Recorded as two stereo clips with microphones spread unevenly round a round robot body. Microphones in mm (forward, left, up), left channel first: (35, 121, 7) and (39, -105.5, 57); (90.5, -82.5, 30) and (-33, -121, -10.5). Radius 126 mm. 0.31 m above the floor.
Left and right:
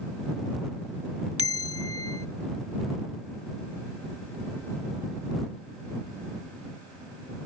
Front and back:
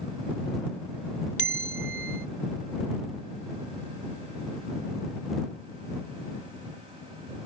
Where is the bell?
5° right.